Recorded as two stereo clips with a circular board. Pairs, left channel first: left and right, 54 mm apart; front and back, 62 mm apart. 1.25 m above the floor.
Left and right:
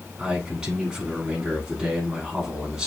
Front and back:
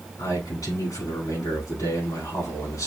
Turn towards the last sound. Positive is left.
turn(degrees=-10)